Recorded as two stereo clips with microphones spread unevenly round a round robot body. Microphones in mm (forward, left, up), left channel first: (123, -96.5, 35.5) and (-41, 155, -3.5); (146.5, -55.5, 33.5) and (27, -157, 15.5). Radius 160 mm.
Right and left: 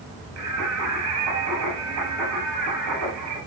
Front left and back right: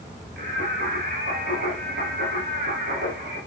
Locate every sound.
0.4 s singing: 175° left, 8 m